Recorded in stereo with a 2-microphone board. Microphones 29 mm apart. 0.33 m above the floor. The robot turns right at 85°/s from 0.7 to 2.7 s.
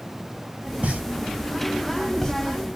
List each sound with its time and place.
0.8 s a pop: 60° right (ahead or behind), 1.0 m; by 2.3 s 20° left (ahead or behind), 1.0 m